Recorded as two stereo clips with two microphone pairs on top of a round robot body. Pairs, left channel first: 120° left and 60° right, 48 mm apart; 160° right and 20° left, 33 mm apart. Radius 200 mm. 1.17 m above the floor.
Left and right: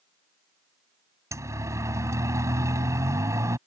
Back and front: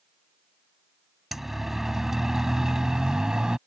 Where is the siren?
60° right; by 3.6 s 45° right.